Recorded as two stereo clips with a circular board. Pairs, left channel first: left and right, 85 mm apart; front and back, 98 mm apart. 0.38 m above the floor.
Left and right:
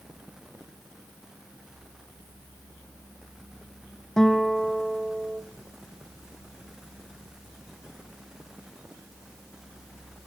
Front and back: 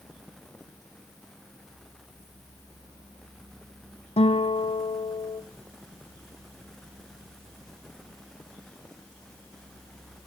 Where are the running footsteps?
No running footsteps in this recording.